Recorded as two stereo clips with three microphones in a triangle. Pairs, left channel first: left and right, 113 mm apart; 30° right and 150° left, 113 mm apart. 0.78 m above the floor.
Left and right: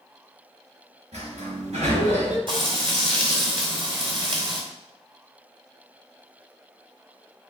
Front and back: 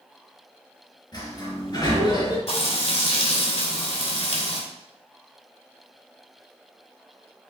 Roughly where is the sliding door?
Right.